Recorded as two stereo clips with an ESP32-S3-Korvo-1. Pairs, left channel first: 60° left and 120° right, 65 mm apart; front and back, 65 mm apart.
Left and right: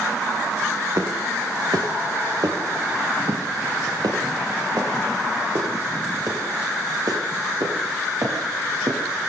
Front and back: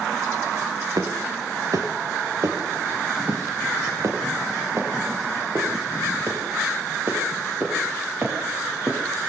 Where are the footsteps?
155° right, 5.5 m; by 9.0 s 125° right, 11.5 m.